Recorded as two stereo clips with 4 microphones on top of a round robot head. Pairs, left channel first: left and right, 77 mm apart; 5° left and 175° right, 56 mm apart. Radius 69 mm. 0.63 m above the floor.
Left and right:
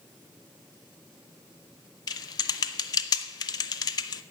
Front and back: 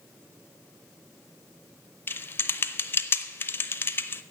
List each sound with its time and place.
2.1 s typing on a keyboard: 55° left, 0.7 m